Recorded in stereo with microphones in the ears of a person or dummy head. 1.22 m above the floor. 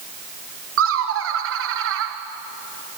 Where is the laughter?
65° right (ahead or behind), 1.1 m.